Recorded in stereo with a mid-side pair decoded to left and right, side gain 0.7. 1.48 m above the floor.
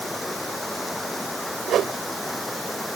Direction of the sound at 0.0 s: 10° left.